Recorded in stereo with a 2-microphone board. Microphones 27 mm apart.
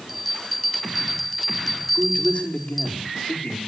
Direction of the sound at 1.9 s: 65° left (ahead or behind).